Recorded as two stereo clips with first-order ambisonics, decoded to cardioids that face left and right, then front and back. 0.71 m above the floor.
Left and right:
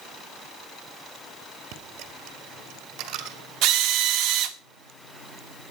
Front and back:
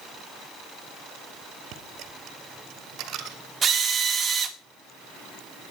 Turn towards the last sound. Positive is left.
turn(degrees=-110)